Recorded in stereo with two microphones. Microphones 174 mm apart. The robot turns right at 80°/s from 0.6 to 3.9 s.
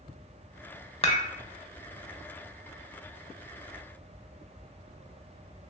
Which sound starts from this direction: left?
Dishes clattering, at 1.0 s.